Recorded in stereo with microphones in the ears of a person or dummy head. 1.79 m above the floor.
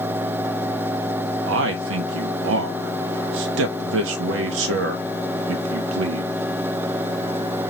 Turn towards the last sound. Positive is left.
turn(degrees=-75)  # may be behind; listen again after turning